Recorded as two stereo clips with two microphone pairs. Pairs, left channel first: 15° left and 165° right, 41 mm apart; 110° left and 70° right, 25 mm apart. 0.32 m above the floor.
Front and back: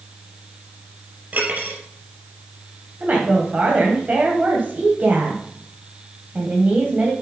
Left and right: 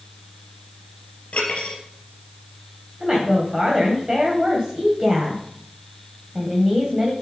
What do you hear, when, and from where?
1.3 s cutlery clinking: 155° left, 3.5 m
3.0 s a woman speaking: 130° right, 1.7 m